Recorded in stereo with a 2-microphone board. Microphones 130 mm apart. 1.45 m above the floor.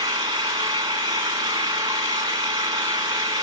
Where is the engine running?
30° right (ahead or behind), 1.7 m.